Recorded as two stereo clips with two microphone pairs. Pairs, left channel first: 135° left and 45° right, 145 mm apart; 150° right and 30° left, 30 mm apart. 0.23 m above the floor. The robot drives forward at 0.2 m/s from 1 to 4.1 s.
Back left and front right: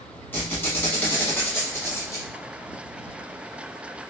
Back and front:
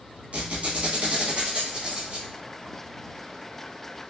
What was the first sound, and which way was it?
A squeak, 60° left.